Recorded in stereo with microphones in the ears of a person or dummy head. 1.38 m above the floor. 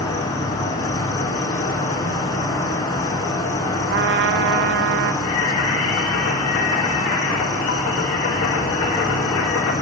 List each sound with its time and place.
0.0 s an insect: 20° left (ahead or behind), 1.0 m
3.9 s a trumpet: 60° right (ahead or behind), 0.5 m
5.2 s singing: 70° left (ahead or behind), 1.4 m